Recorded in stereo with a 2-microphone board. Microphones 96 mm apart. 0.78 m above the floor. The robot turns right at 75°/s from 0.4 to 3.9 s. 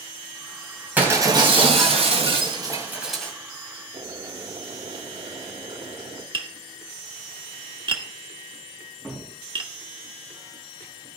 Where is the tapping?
55° right (ahead or behind), 1.3 m.